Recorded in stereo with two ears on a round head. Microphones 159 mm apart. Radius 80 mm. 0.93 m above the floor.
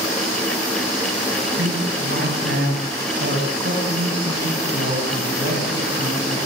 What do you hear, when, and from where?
1.6 s a man speaking: 70° right (ahead or behind), 7 m; by 6.4 s 40° right (ahead or behind), 7 m